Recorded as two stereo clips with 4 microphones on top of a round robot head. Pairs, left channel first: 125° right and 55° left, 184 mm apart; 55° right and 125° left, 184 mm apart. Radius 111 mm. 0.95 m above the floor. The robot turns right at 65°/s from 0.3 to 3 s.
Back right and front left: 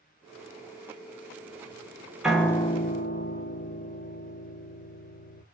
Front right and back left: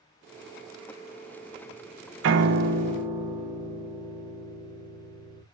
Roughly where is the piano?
Behind left.